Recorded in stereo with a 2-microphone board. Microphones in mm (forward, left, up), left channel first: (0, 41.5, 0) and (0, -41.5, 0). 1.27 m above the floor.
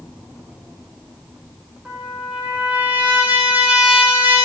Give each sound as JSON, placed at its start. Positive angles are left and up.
{"t": 1.9, "sound": "a trumpet", "side_deg": -15, "distance_m": 4.5}